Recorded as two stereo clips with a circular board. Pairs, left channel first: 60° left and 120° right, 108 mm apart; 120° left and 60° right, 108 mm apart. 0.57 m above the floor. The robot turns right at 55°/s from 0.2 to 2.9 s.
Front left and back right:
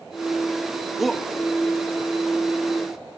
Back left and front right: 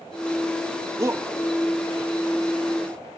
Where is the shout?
35° right; by 1.2 s 20° right.